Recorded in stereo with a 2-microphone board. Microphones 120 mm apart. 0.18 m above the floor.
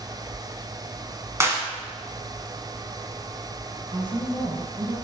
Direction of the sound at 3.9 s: 40° right (ahead or behind).